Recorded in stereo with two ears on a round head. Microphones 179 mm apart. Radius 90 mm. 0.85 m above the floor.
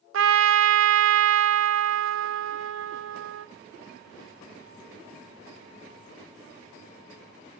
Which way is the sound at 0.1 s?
70° right (ahead or behind).